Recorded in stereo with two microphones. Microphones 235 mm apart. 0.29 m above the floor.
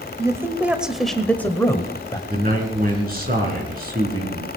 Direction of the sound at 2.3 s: 40° right (ahead or behind).